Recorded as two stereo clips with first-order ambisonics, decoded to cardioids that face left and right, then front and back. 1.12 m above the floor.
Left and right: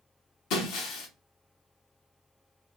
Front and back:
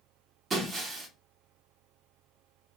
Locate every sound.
0.5 s breaking glass: 110° left, 0.9 m